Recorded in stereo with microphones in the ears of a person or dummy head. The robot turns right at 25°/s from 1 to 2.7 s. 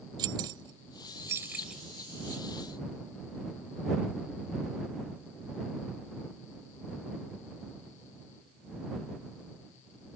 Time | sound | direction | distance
0.2 | keys jangling | 20° right (ahead or behind) | ?